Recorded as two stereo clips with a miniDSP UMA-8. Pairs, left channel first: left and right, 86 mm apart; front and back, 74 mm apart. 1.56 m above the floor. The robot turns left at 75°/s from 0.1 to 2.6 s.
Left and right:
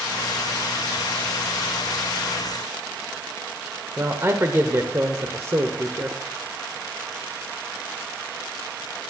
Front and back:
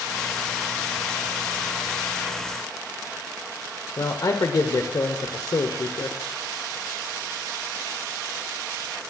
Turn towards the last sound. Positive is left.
turn(degrees=-35)